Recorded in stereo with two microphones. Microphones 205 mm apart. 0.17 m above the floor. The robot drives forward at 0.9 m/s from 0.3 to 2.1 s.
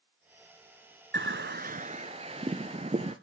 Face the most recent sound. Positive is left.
turn(degrees=-30)  # may be behind; listen again after turning